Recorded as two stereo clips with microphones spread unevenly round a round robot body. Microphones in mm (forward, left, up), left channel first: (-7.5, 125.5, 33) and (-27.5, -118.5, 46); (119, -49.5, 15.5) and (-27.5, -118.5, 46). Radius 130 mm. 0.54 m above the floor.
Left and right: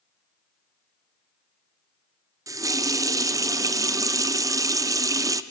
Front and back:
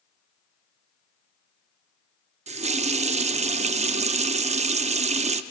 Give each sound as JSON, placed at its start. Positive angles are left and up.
{"t": 2.5, "sound": "a running tap", "azimuth_deg": -165, "distance_m": 0.6}